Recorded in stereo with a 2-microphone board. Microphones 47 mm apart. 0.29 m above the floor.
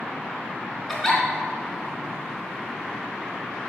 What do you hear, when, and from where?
0.9 s a giggle: 10° left (ahead or behind), 2.5 m